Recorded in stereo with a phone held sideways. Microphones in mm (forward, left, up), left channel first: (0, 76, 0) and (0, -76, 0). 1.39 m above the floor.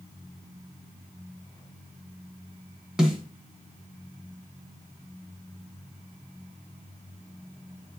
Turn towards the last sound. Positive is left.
turn(degrees=-5)  # may be behind; listen again after turning